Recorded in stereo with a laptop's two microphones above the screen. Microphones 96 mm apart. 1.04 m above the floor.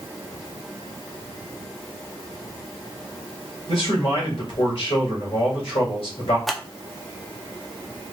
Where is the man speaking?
60° left (ahead or behind), 2 m.